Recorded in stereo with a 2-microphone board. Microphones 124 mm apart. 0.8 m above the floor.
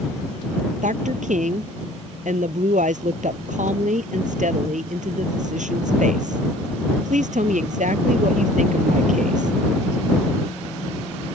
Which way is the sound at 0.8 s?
85° right.